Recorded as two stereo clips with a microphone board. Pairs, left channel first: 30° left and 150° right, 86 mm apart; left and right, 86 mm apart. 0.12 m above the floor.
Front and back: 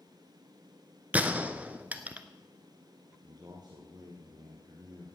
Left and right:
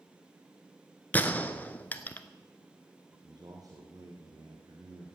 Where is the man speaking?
130° right, 2.5 m.